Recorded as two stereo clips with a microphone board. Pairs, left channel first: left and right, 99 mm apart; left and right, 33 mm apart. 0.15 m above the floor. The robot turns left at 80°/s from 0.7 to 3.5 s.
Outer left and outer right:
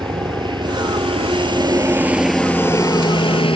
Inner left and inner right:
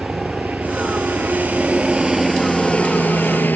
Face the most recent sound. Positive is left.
turn(degrees=60)  # may be behind; listen again after turning